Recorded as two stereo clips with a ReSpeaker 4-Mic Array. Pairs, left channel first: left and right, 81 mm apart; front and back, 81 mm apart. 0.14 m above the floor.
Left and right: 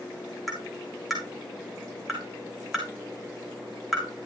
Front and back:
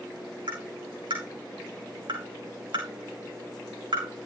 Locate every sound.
0.5 s tapping: straight behind, 7 m